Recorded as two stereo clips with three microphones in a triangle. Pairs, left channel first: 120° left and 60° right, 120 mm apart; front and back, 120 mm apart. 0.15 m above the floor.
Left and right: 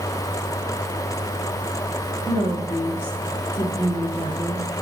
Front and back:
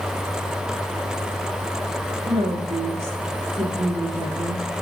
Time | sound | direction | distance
2.3 | a woman speaking | 170° right | 3 m